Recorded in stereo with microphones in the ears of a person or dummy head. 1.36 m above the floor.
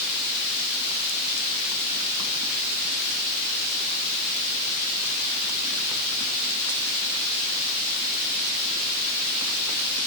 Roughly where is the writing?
I don't hear writing.